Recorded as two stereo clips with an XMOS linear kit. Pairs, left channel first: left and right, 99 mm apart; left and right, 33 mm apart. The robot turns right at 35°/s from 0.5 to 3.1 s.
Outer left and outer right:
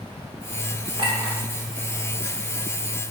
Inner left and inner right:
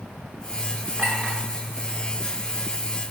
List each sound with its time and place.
1.0 s a clink: 65° right (ahead or behind), 1.8 m; by 1.4 s 70° right (ahead or behind), 1.8 m